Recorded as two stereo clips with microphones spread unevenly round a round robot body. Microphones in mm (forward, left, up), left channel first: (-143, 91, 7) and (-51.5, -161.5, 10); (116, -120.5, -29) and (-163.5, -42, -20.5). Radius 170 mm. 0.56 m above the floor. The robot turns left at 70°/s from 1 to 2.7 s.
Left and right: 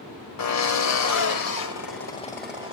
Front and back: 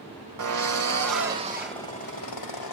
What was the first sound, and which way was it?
A drill, 120° left.